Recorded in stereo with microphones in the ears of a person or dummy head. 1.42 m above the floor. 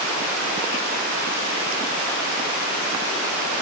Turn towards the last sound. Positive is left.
No sound to turn to.